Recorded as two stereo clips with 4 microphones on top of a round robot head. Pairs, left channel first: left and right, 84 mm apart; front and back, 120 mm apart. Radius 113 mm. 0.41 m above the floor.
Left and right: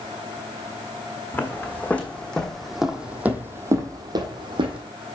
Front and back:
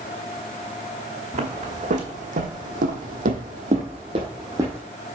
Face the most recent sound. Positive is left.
turn(degrees=-105)